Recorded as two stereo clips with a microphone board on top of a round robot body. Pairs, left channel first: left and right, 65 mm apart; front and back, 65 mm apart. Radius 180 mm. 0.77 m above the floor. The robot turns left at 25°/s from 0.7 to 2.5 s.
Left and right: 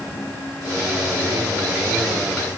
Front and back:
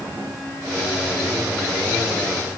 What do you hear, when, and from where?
Only background noise.